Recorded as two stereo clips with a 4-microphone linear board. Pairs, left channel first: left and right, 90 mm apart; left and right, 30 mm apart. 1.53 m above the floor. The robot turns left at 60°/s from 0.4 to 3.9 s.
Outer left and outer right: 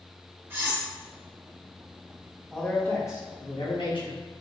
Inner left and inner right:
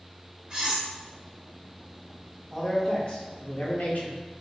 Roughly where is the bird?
I don't hear a bird.